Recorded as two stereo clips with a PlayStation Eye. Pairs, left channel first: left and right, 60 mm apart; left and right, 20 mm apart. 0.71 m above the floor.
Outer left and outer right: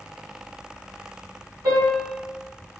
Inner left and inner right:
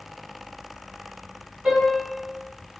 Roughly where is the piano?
Right.